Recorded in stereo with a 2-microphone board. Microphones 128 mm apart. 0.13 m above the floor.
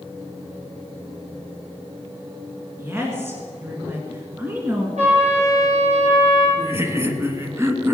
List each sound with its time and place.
2.8 s a woman speaking: 20° right (ahead or behind), 2 m
5.0 s a trumpet: 75° right (ahead or behind), 5.5 m
6.6 s laughter: 20° right (ahead or behind), 1.3 m